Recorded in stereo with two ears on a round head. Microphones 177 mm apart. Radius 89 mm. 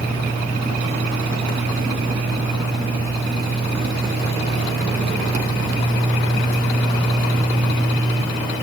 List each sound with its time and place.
Only background noise.